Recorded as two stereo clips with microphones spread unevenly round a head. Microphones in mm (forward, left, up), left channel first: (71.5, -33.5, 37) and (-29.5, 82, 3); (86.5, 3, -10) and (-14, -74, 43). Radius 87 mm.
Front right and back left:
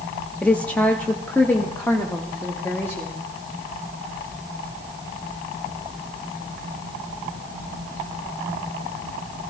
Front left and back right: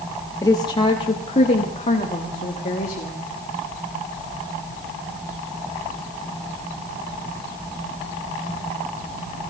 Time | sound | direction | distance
0.4 | a woman speaking | 45° left | 0.7 m